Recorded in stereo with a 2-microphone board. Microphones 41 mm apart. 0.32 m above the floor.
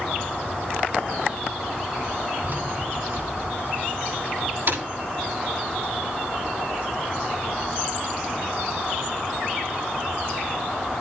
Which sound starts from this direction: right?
Keys jangling, at 2.4 s.